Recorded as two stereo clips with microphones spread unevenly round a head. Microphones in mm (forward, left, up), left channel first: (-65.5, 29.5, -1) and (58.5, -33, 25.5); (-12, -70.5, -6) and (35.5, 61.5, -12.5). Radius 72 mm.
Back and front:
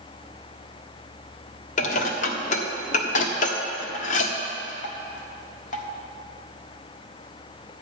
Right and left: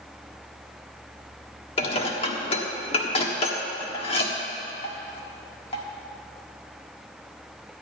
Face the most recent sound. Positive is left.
turn(degrees=-165)